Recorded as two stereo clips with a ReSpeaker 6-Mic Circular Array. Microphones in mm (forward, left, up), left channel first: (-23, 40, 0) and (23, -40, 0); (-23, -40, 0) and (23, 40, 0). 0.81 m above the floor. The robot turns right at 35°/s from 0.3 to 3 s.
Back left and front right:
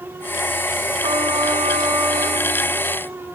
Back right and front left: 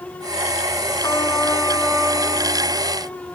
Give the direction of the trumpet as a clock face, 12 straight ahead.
2 o'clock.